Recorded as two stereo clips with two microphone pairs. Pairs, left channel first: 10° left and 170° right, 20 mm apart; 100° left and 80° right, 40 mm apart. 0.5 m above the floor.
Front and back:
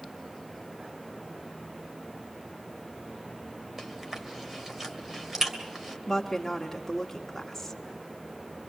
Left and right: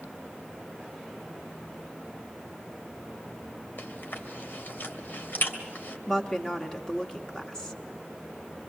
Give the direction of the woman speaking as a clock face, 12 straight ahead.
10 o'clock.